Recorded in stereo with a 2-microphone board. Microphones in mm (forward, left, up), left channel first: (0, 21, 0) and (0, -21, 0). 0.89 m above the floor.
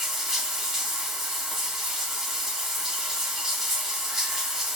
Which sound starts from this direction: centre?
Running water, at 0.0 s.